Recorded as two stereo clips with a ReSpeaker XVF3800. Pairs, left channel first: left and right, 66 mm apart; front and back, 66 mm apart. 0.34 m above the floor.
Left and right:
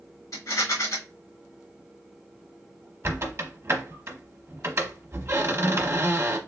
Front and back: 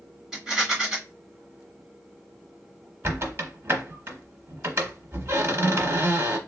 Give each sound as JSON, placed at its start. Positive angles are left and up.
{"t": 0.3, "sound": "a rattle", "azimuth_deg": 100, "distance_m": 1.9}
{"t": 3.0, "sound": "a squeak", "azimuth_deg": -130, "distance_m": 0.9}